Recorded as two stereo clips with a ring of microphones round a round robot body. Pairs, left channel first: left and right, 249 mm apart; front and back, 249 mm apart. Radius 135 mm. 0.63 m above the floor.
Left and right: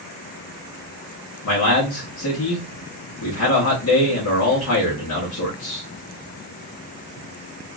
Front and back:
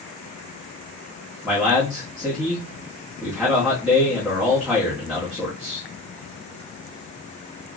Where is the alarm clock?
I don't hear an alarm clock.